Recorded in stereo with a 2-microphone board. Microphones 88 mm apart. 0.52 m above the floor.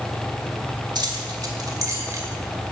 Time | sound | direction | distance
0.9 | keys jangling | 60° right (ahead or behind) | 1.7 m